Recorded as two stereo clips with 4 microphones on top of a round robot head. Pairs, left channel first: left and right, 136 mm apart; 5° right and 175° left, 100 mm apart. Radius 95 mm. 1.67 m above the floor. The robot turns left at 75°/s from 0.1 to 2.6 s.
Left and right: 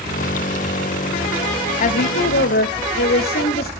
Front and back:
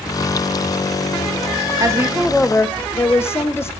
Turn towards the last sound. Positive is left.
turn(degrees=60)